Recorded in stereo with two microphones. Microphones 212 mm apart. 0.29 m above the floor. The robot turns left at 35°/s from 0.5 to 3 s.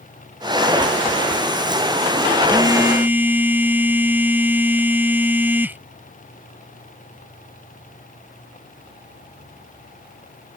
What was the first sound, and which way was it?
A phone buzzing, 20° right (ahead or behind).